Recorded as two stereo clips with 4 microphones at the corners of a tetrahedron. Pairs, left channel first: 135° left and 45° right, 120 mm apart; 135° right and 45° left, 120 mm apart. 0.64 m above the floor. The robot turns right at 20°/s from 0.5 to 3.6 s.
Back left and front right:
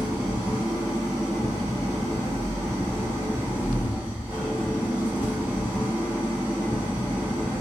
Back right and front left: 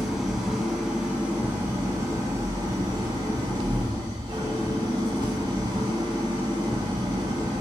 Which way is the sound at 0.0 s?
40° right.